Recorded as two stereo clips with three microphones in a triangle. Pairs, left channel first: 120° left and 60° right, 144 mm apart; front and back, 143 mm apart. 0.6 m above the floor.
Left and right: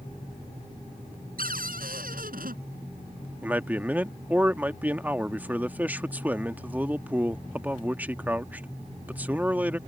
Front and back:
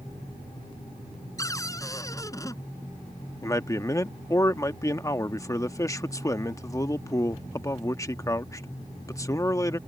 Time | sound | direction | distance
1.4 | a cupboard door | 70° right | ?
3.4 | a man speaking | 5° right | ?